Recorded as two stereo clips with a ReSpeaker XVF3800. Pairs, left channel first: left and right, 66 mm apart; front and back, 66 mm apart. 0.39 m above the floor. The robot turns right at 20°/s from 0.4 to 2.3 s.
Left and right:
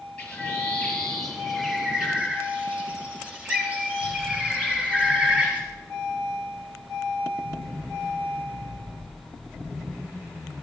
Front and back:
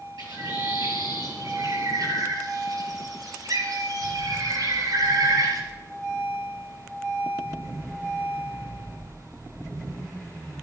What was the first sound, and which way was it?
A bird, 160° left.